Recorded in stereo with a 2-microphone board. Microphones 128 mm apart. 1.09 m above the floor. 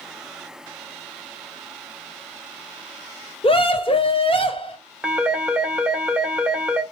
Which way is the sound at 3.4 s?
45° left (ahead or behind).